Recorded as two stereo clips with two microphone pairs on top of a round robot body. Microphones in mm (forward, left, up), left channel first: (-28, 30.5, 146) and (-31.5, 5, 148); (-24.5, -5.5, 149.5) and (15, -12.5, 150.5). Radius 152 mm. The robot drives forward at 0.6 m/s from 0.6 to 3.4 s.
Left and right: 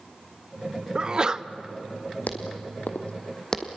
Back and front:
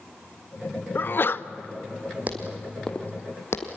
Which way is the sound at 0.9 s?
160° right.